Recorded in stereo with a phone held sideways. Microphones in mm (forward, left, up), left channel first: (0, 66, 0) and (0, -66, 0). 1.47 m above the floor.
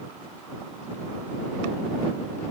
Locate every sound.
Only background noise.